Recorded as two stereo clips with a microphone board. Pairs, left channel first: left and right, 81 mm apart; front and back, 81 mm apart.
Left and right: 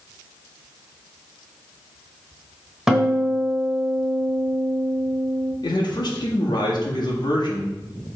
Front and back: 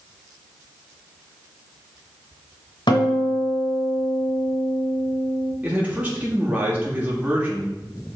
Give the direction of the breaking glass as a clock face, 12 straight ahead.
I don't hear breaking glass.